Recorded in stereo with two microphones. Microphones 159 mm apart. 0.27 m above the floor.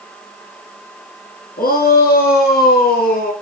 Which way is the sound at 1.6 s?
70° left (ahead or behind).